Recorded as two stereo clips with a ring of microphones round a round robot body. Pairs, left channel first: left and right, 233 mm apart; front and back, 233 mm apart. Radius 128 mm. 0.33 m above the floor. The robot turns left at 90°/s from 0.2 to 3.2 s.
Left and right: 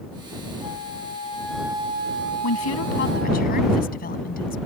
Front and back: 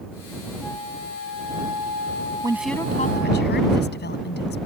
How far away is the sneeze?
I don't hear a sneeze.